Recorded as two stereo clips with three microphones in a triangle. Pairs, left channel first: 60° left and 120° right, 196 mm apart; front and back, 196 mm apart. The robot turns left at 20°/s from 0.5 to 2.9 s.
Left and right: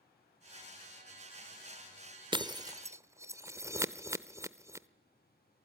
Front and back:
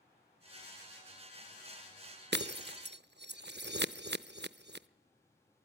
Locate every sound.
2.3 s breaking glass: straight behind, 0.7 m; by 4.9 s 165° left, 0.7 m